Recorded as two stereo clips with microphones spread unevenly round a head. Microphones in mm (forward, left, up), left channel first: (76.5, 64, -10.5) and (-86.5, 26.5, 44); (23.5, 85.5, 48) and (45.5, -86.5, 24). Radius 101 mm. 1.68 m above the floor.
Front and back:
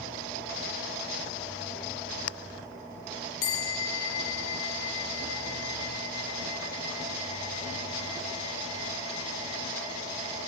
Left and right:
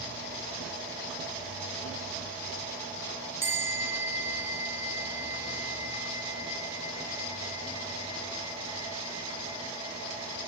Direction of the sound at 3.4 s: 5° right.